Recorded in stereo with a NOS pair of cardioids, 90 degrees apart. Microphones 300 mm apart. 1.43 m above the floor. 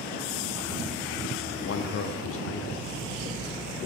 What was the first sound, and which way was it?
A man speaking, 50° left.